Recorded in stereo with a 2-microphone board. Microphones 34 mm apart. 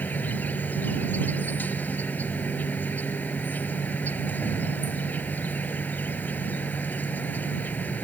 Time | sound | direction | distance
0.0 | an insect | 55° left (ahead or behind) | ?